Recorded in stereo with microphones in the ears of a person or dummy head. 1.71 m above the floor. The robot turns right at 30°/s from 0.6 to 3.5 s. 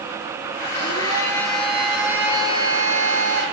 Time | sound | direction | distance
0.7 | a blender | 140° left | 7 m